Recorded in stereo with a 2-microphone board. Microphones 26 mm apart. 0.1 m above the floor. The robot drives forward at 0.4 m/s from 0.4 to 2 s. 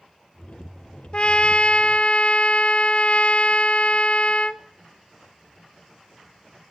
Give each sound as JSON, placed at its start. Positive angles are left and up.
{"t": 1.1, "sound": "a trumpet", "side_deg": 40, "distance_m": 0.6}